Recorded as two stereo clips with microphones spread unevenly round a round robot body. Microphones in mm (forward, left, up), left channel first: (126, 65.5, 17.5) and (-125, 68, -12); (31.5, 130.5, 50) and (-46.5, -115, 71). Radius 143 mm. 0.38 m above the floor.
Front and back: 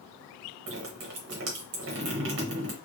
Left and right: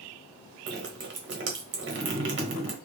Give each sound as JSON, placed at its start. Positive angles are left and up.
{"t": 0.7, "sound": "dripping", "azimuth_deg": -150, "distance_m": 1.1}